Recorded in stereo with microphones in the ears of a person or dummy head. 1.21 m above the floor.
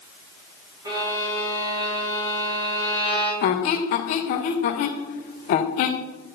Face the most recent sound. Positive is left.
turn(degrees=45)  # may be behind; listen again after turning